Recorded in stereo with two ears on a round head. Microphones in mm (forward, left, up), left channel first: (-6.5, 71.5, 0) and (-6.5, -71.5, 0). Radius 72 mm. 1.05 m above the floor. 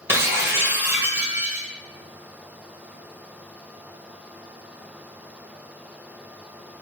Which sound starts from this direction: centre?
Breaking glass, at 0.1 s.